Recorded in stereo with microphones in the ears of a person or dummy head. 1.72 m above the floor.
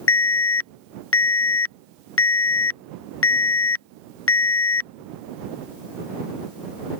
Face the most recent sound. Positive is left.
turn(degrees=60)  # may be behind; listen again after turning